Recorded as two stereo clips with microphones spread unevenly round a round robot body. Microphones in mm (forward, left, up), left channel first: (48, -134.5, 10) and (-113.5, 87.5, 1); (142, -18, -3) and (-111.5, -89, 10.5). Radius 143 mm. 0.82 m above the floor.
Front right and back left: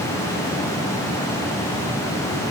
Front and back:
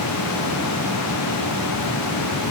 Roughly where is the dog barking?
No dog barking in this recording.